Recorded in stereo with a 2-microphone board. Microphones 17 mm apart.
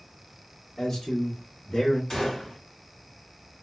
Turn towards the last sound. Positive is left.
turn(degrees=45)  # may be behind; listen again after turning